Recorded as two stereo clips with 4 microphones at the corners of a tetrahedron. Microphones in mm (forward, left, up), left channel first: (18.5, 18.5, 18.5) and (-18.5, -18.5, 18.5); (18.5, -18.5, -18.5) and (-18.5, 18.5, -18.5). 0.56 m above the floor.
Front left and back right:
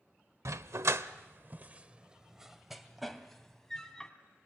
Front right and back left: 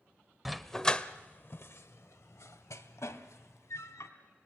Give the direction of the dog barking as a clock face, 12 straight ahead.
5 o'clock.